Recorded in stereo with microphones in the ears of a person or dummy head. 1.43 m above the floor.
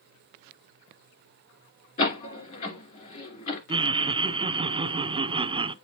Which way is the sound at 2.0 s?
40° left (ahead or behind).